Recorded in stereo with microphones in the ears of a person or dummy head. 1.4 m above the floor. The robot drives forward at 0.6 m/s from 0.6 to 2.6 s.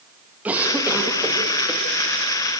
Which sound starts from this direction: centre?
A cough, at 0.5 s.